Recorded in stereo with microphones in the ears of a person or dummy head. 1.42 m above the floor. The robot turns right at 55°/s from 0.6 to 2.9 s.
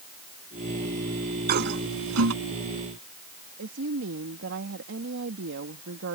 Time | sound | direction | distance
1.5 | a toilet flushing | 50° right (ahead or behind) | ?
3.6 | a woman speaking | 65° right (ahead or behind) | ?